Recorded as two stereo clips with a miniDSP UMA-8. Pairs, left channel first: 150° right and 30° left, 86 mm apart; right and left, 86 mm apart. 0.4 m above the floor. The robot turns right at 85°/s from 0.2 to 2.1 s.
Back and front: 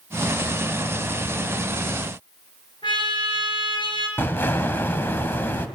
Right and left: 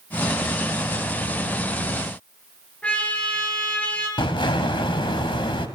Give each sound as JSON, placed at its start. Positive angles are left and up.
{"t": 2.8, "sound": "a trumpet", "azimuth_deg": -165, "distance_m": 5.5}
{"t": 4.2, "sound": "an explosion", "azimuth_deg": -85, "distance_m": 2.0}